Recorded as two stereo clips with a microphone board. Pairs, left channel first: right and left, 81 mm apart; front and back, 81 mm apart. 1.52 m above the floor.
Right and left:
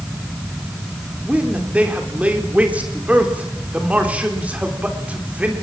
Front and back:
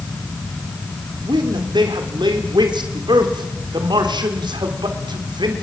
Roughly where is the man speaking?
Behind.